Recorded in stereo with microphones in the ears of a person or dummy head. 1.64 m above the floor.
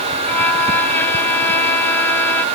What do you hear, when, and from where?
0.2 s a violin: 15° left (ahead or behind)